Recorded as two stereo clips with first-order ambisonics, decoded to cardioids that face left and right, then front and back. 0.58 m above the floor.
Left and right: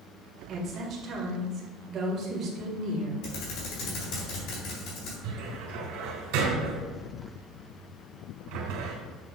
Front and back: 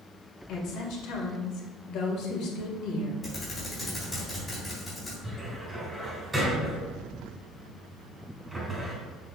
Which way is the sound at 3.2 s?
75° left.